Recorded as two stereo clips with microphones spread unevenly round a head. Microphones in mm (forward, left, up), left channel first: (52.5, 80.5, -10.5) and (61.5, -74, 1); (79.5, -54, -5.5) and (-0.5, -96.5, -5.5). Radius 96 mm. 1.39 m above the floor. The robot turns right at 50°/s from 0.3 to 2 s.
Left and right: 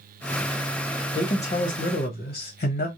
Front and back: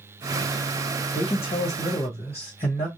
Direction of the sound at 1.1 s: 30° left.